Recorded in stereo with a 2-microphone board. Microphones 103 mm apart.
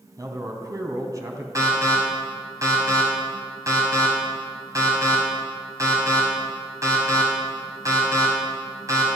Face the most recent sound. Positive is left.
turn(degrees=-30)  # may be behind; listen again after turning